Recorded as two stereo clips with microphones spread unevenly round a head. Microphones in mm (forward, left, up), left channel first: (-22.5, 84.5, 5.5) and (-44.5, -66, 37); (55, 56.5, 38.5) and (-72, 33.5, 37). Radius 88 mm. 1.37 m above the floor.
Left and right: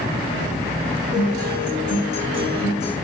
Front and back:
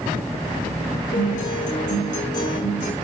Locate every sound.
1.1 s a guitar: 25° left, 5.5 m